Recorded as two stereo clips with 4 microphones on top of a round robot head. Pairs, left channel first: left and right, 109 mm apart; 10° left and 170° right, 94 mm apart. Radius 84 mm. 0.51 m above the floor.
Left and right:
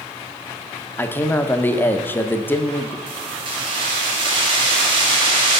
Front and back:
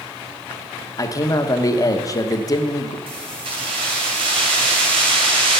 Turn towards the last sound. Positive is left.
turn(degrees=-135)